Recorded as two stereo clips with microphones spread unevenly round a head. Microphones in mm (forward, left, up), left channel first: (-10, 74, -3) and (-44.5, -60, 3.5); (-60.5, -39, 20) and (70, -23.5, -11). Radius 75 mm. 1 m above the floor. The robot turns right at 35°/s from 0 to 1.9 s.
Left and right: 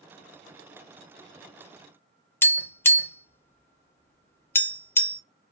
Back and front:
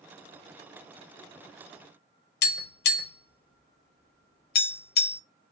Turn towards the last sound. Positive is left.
turn(degrees=150)